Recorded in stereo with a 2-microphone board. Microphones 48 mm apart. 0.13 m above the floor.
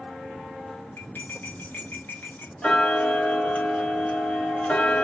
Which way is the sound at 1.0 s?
45° left (ahead or behind).